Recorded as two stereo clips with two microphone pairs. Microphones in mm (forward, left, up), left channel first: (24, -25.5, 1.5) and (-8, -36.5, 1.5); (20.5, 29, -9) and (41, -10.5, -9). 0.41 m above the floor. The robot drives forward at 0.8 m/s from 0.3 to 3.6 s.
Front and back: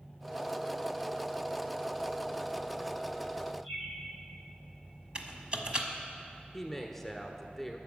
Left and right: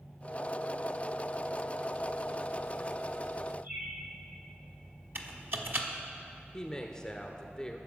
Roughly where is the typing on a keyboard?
Right.